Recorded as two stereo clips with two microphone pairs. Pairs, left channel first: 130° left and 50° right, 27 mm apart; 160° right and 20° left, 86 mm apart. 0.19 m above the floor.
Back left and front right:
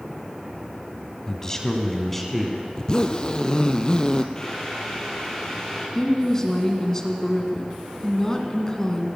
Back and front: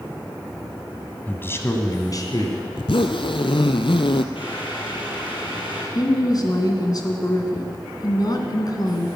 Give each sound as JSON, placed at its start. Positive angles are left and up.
{"t": 1.3, "sound": "a man speaking", "azimuth_deg": 160, "distance_m": 1.6}
{"t": 2.8, "sound": "a zipper", "azimuth_deg": -170, "distance_m": 0.8}
{"t": 4.3, "sound": "boiling", "azimuth_deg": -160, "distance_m": 4.5}
{"t": 6.0, "sound": "a woman speaking", "azimuth_deg": -165, "distance_m": 2.0}